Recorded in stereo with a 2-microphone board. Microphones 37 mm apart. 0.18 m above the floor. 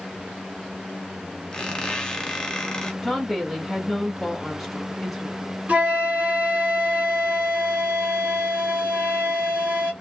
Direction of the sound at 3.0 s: 5° right (ahead or behind).